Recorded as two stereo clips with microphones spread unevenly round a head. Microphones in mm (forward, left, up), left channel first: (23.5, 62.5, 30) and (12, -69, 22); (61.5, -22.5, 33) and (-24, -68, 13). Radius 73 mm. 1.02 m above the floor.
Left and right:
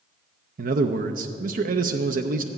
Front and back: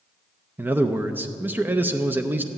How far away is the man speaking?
About 0.6 m.